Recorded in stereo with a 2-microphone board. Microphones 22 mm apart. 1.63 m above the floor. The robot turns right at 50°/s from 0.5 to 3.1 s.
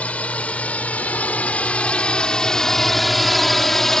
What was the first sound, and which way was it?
A drone, 65° left (ahead or behind).